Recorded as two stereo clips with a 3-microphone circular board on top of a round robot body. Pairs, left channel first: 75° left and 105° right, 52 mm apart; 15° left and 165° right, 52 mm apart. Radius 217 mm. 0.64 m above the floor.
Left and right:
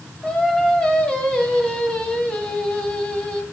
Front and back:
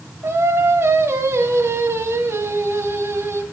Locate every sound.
0.2 s singing: 150° left, 1.9 m